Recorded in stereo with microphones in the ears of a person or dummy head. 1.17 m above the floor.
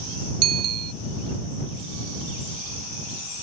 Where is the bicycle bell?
85° right.